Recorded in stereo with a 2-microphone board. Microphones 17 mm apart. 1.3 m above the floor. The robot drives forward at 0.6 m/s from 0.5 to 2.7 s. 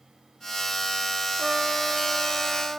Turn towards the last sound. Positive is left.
turn(degrees=-20)  # may be behind; listen again after turning